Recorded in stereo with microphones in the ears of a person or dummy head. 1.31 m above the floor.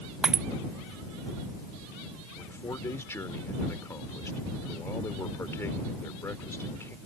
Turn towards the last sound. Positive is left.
turn(degrees=15)  # may be behind; listen again after turning